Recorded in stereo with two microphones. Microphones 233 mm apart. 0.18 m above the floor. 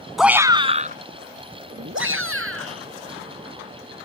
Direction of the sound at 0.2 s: Centre (ahead or behind).